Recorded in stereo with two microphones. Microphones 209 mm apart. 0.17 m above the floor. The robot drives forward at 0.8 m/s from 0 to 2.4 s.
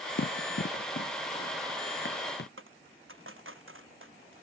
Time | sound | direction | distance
0.2 | running footsteps | 65° left (ahead or behind) | ?
2.6 | a dropped coin | 80° right | ?